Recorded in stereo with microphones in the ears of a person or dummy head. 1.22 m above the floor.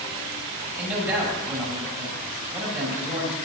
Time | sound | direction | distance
0.8 | a man speaking | centre (ahead or behind) | 8.5 m